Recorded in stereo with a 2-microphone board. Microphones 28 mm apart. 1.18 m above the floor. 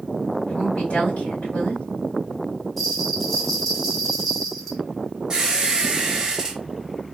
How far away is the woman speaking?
About 2 m.